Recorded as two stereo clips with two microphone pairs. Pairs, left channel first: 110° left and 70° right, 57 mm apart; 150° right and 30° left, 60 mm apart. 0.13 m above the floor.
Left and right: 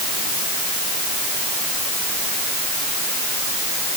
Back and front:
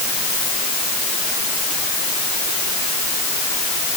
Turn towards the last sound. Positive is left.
No sound to turn to.